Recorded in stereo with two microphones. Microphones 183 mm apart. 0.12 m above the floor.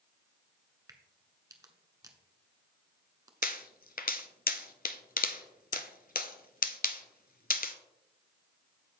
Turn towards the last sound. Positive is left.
turn(degrees=50)  # may be behind; listen again after turning